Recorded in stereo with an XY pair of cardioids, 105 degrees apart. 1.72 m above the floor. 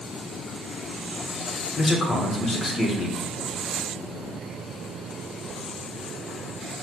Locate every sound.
1.8 s a man speaking: 40° left, 1.1 m